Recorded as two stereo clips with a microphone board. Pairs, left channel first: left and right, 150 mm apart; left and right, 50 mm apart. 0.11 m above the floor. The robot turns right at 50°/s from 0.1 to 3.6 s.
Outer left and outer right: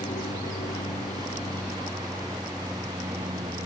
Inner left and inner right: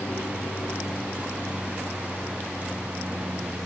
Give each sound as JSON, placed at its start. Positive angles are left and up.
{"t": 0.0, "sound": "an aircraft", "side_deg": 60}